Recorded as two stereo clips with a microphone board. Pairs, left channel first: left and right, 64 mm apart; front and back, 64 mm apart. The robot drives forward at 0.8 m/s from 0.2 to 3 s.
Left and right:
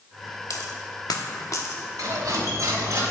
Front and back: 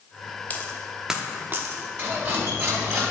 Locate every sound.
0.5 s a dropped coin: 65° left, 0.8 m; by 1.8 s 135° left, 0.9 m
2.0 s cutlery clinking: 120° right, 2.0 m; by 3.0 s 135° right, 2.5 m